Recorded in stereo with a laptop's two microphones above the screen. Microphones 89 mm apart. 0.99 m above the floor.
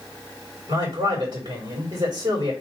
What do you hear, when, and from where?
0.7 s a man speaking: 60° right (ahead or behind), 2.5 m